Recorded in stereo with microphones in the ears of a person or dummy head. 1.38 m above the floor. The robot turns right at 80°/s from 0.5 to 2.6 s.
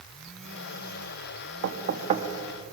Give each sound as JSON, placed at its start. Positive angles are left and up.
{"t": 1.6, "sound": "knocking", "side_deg": -65, "distance_m": 1.4}